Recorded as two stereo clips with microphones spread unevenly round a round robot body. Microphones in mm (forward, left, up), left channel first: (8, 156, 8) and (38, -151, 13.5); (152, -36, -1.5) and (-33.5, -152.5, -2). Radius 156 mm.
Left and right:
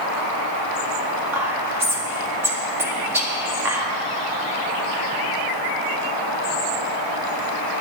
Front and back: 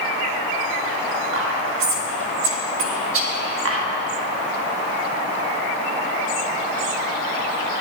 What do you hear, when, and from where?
1.3 s whispering: 165° right, 1.6 m